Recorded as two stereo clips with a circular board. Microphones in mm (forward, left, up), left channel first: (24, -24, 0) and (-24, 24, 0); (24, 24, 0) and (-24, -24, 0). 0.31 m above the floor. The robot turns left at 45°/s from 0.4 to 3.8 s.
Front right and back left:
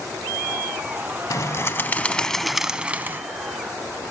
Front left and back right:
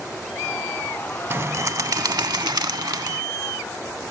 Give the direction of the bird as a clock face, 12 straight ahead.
3 o'clock.